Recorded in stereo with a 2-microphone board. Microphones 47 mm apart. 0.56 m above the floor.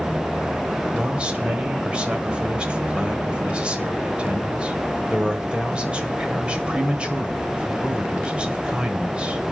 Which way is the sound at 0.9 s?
20° right (ahead or behind).